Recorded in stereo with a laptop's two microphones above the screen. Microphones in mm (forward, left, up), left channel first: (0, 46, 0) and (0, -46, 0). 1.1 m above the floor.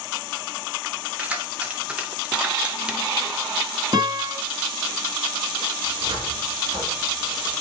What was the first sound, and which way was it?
Keys jangling, 15° right (ahead or behind).